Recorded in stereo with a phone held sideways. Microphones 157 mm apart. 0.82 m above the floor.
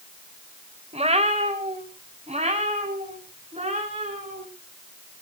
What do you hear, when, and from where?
0.9 s a cat meowing: 40° right (ahead or behind), 1.7 m; by 4.5 s 45° right (ahead or behind), 6 m